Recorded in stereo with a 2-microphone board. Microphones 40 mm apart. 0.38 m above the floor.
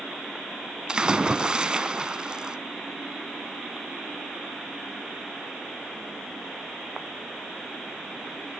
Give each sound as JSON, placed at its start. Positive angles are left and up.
{"t": 0.9, "sound": "a splash", "side_deg": -20, "distance_m": 0.7}